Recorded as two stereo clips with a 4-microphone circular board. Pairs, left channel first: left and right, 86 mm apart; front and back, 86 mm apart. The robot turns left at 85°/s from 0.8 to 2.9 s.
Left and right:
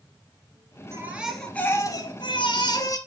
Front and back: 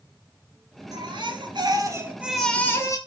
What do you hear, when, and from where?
0.9 s a baby crying: 145° right, 2 m; by 3.0 s 50° left, 2 m